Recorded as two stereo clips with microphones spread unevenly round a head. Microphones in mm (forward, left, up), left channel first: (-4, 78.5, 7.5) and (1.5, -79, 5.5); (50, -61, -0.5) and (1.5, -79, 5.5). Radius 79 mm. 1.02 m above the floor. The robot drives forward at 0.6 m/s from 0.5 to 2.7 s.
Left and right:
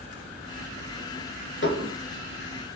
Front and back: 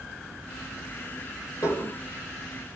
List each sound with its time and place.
1.6 s dishes clattering: 75° left, 2 m; by 2.0 s 80° left, 2 m